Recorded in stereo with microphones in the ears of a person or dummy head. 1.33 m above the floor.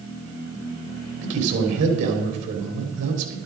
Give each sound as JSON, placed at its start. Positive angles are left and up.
{"t": 1.2, "sound": "a man speaking", "side_deg": -70, "distance_m": 3.5}